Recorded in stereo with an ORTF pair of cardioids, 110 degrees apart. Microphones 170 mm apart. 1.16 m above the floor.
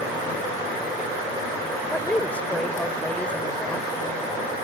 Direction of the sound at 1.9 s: 5° left.